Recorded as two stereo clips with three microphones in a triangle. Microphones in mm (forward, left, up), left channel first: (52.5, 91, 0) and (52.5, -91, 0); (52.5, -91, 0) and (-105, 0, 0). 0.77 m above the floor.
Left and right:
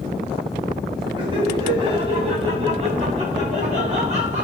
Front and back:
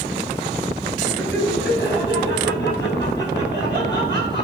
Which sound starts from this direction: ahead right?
Laughter, at 1.2 s.